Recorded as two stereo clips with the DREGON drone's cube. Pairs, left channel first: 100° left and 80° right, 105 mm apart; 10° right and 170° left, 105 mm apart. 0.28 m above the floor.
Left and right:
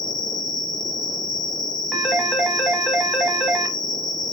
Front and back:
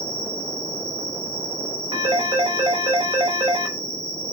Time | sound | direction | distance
0.0 | an insect | 175° right | 1.7 m
1.9 | a phone ringing | 170° right | 0.9 m